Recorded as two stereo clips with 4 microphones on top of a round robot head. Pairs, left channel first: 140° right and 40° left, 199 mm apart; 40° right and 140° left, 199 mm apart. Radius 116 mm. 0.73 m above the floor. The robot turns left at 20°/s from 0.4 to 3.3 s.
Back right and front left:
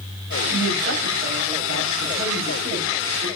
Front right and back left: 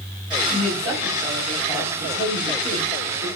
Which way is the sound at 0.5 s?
50° left.